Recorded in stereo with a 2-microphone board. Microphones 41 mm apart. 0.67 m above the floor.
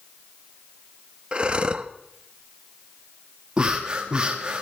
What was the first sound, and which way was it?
Breathing, 25° right (ahead or behind).